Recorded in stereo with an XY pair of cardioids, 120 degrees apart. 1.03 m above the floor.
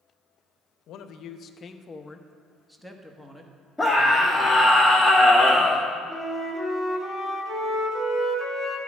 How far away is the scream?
About 2.5 m.